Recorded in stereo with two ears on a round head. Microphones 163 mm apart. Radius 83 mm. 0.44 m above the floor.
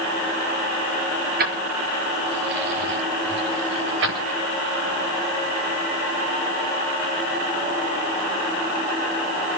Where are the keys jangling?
50° right (ahead or behind), 4.5 m; by 4.3 s 70° right (ahead or behind), 6 m.